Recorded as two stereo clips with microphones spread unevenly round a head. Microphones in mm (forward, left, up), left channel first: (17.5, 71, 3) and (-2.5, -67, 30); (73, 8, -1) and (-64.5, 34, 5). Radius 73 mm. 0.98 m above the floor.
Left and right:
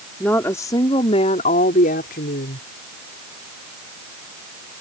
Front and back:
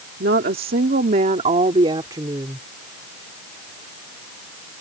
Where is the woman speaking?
165° left; by 2.7 s 100° left.